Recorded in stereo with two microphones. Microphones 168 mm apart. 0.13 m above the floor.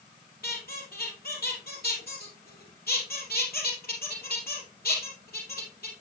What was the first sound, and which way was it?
A squeak, 70° left (ahead or behind).